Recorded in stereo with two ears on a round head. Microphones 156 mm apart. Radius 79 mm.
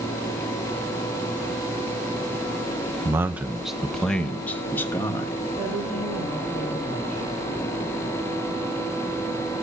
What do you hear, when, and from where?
3.0 s a man speaking: 15° right (ahead or behind), 0.7 m; by 5.3 s 15° left (ahead or behind), 1.5 m
5.6 s a woman speaking: 5° right (ahead or behind), 9.5 m